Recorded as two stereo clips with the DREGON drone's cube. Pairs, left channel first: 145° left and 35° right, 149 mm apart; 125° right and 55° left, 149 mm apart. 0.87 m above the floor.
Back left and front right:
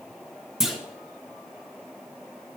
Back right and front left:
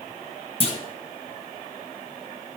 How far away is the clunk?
About 1.2 m.